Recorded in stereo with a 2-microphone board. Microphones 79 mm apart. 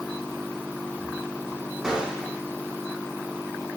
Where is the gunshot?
10° right (ahead or behind), 5 m.